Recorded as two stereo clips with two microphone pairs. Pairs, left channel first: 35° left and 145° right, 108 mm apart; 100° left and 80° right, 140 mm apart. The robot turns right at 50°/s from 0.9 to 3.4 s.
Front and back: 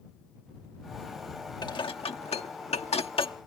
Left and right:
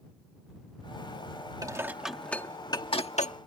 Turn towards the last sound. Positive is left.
turn(degrees=75)